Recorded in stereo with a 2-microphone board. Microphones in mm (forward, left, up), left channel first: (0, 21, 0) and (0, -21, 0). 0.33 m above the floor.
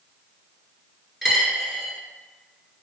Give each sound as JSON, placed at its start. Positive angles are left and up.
{"t": 1.2, "sound": "a dropped coin", "side_deg": -10, "distance_m": 1.0}